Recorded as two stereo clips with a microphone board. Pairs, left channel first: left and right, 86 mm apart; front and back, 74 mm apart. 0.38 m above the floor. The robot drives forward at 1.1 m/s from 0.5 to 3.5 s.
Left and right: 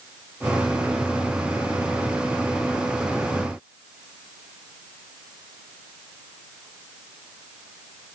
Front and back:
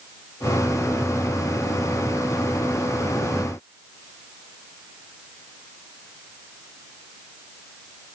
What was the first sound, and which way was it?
Only background noise.